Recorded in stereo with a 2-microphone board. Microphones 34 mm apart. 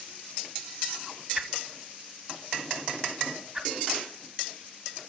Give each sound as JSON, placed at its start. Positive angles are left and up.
{"t": 1.4, "sound": "a whoosh", "side_deg": -15, "distance_m": 1.0}